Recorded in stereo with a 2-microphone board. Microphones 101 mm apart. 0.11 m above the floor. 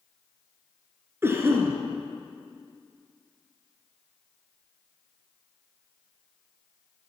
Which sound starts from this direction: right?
A cough, at 1.2 s.